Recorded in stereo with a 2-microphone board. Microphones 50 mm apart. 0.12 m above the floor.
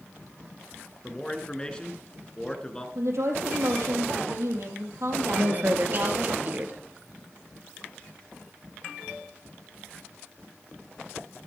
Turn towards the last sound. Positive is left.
turn(degrees=-40)  # may be behind; listen again after turning